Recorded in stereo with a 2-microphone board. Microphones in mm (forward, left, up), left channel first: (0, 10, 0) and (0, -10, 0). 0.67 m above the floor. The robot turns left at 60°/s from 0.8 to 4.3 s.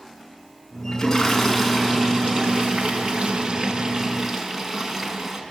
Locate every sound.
0.9 s a toilet flushing: 30° left, 5.5 m; by 5.4 s 170° right, 5.5 m